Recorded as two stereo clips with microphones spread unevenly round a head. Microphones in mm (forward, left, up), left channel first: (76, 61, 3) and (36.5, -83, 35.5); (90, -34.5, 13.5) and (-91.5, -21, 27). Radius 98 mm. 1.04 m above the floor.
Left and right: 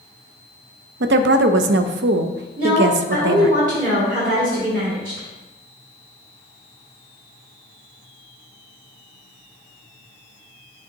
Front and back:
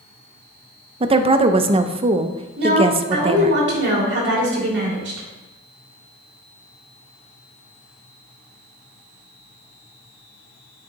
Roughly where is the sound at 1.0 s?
Behind right.